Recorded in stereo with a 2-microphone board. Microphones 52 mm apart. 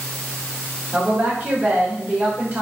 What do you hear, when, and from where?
0.9 s a woman speaking: 40° right (ahead or behind), 2.5 m